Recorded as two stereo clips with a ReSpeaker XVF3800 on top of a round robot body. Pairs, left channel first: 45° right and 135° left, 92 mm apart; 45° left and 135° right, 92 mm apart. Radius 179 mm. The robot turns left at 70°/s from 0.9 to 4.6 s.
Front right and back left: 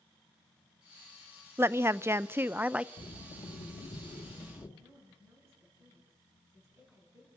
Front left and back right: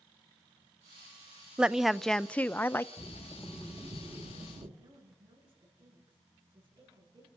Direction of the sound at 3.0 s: 5° right.